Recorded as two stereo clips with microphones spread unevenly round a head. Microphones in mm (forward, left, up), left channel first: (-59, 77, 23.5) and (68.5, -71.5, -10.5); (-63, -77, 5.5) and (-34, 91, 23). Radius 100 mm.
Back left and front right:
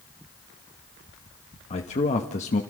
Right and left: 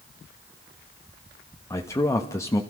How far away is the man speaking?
About 1.3 m.